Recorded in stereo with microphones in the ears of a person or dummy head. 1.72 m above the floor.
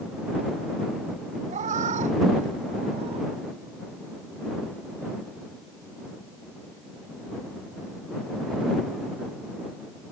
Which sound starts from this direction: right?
A cat meowing, at 1.5 s.